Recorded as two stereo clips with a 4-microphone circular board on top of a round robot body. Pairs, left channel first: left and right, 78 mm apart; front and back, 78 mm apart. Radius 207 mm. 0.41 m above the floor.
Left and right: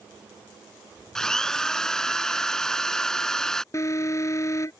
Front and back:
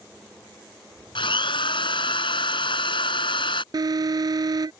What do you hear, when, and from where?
1.1 s a drill: 5° left
3.7 s an alarm: 145° left